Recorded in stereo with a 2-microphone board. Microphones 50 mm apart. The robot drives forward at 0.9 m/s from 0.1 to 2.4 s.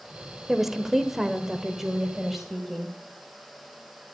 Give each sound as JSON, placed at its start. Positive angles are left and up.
{"t": 0.5, "sound": "a woman speaking", "side_deg": -5, "distance_m": 1.2}